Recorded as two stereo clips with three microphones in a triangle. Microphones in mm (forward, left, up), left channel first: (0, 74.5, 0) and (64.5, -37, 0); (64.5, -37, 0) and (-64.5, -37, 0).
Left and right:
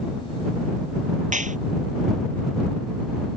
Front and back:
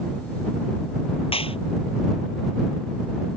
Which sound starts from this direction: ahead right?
A clap, at 1.3 s.